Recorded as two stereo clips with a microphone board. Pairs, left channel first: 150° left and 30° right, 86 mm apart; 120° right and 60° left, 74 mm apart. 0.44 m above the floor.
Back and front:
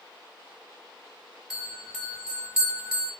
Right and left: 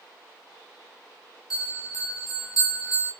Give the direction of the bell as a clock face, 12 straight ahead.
4 o'clock.